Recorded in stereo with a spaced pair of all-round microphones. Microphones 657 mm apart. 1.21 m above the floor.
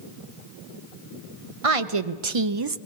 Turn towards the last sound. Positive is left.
turn(degrees=-30)  # may be behind; listen again after turning